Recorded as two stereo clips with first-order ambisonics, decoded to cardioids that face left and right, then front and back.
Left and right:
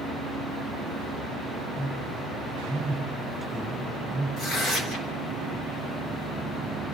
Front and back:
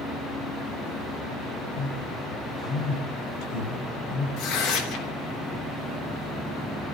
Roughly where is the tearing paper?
Ahead left.